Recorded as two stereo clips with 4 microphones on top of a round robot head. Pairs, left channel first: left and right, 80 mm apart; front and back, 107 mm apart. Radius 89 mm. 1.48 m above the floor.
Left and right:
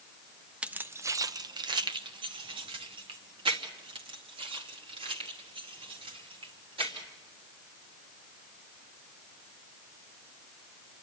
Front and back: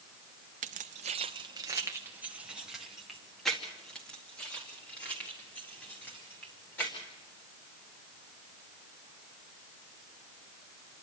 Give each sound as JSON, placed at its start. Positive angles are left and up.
{"t": 0.6, "sound": "keys jangling", "azimuth_deg": -165, "distance_m": 0.8}